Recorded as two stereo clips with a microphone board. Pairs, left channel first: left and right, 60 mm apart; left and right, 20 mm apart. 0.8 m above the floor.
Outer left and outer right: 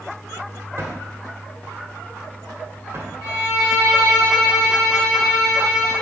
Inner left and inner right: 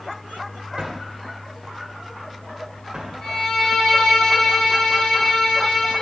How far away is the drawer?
About 1.8 m.